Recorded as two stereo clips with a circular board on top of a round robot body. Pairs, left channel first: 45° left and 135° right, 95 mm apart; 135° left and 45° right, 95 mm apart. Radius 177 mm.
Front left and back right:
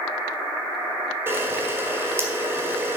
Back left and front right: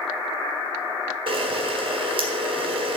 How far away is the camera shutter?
About 1.7 m.